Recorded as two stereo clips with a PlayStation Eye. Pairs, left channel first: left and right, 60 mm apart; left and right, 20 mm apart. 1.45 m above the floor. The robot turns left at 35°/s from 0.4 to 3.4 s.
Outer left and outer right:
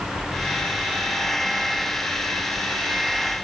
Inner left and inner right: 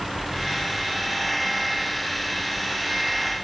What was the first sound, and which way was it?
Only background noise.